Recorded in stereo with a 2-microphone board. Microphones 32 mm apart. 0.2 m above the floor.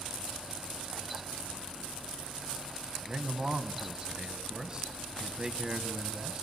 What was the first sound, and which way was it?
A man speaking, 25° right (ahead or behind).